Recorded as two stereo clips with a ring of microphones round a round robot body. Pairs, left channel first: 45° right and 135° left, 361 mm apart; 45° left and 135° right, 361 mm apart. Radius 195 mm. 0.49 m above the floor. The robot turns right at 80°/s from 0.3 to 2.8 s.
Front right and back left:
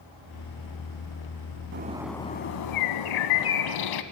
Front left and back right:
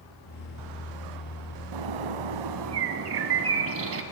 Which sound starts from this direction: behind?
A bird, at 1.7 s.